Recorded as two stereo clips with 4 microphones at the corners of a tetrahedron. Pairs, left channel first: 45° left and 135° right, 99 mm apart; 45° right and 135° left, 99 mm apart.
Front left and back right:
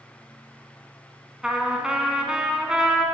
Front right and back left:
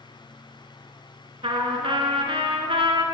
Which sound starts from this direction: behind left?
A trumpet, at 1.4 s.